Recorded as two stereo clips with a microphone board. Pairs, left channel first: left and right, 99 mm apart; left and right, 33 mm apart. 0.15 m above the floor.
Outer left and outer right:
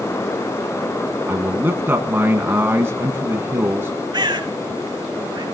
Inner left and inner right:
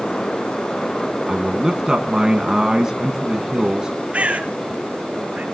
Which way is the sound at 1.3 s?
25° right (ahead or behind).